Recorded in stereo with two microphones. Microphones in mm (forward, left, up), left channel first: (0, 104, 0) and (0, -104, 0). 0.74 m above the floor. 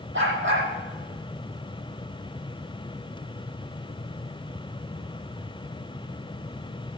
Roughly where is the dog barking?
Right.